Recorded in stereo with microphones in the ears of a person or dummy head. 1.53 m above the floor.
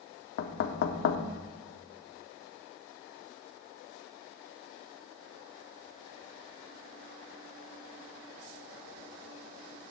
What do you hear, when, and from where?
0.4 s knocking: 65° left (ahead or behind), 0.7 m